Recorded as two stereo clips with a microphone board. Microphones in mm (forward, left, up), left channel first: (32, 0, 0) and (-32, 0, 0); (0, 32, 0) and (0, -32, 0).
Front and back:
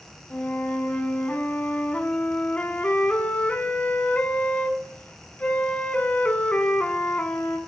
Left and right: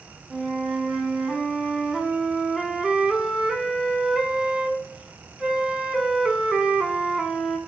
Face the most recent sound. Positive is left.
turn(degrees=-20)